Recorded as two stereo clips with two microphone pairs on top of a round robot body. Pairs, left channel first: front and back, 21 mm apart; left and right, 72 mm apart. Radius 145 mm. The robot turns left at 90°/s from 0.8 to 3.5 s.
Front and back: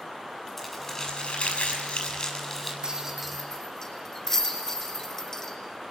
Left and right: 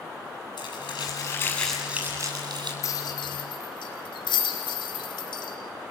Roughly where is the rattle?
Behind left.